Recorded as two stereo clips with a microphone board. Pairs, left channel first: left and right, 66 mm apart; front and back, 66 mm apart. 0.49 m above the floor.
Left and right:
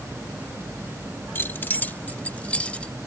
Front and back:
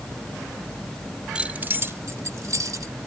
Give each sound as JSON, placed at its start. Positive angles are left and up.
{"t": 1.4, "sound": "keys jangling", "azimuth_deg": 115}